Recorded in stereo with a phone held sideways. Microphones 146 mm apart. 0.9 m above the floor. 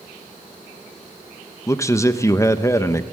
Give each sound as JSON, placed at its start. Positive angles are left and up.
{"t": 1.7, "sound": "a man speaking", "side_deg": 20, "distance_m": 0.9}